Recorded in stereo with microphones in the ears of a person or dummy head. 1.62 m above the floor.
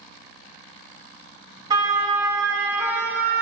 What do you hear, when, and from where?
1.7 s a siren: 25° right (ahead or behind), 3.5 m; by 3.4 s 10° right (ahead or behind), 3.5 m